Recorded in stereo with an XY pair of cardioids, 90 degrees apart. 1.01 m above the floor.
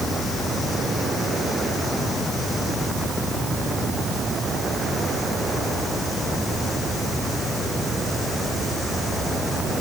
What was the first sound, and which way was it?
Only background noise.